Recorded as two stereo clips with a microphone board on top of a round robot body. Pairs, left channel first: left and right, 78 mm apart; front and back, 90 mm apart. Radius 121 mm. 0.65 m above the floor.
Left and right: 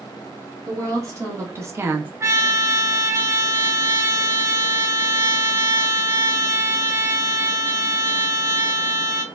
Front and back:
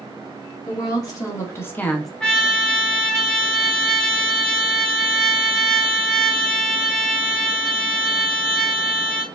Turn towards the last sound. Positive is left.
turn(degrees=-75)